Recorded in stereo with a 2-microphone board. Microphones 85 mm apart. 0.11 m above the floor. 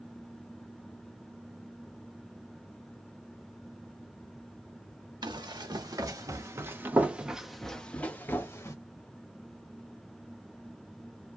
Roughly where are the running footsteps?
Right.